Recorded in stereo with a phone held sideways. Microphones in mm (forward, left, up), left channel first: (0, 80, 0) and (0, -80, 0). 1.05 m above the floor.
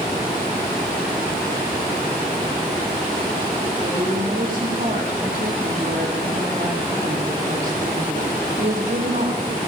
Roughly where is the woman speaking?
Right.